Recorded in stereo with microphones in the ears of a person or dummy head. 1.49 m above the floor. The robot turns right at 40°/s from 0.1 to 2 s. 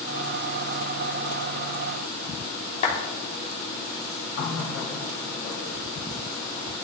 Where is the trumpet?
No trumpet in this recording.